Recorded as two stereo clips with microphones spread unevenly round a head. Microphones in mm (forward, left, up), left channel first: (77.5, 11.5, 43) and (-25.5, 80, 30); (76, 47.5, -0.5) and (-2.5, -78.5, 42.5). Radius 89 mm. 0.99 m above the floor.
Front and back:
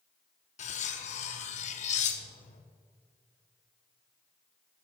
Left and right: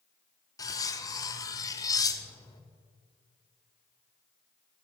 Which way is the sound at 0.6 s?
15° right.